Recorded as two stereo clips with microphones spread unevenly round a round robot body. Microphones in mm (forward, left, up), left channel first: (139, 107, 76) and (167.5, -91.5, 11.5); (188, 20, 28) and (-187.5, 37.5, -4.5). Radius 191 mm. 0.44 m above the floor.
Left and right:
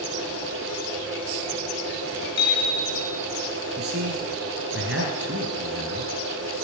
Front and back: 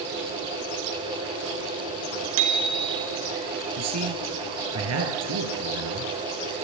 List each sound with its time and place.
2.4 s a bicycle bell: 165° left, 4.5 m
3.8 s a man speaking: 130° right, 6.5 m